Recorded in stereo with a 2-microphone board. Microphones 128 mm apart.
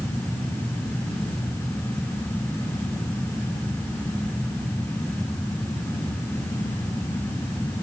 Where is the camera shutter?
No camera shutter in this recording.